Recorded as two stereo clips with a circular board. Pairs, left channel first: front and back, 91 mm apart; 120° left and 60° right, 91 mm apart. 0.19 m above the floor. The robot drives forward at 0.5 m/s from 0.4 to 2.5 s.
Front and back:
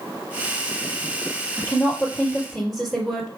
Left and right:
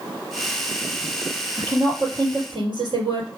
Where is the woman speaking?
85° right, 3.5 m; by 3.3 s 90° right, 3.5 m.